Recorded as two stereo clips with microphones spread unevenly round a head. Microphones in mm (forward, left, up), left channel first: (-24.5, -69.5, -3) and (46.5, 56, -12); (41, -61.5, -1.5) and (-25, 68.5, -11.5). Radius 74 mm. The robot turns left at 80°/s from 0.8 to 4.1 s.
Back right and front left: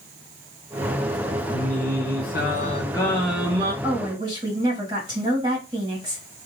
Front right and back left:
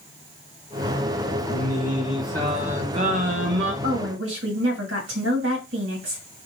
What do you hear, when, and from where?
1.5 s singing: 70° right, 1.1 m; by 3.7 s 115° left, 1.1 m
3.8 s a woman speaking: 145° left, 1.9 m; by 6.2 s 120° left, 1.9 m